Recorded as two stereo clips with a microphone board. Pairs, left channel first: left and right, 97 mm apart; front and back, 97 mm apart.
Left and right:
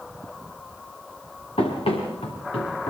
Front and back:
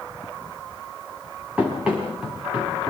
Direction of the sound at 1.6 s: 100° left.